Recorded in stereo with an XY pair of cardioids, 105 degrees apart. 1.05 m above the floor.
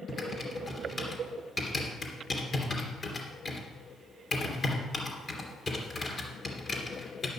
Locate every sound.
0.1 s typing on a keyboard: 35° left, 3 m